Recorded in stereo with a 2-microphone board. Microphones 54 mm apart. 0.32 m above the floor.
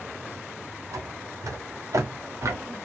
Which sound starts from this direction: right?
Footsteps, at 0.9 s.